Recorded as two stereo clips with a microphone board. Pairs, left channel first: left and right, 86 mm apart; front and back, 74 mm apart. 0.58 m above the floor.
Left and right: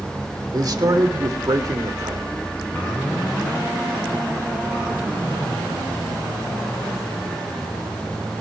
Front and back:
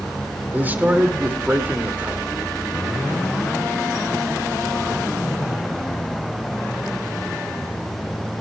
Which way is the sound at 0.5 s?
120° right.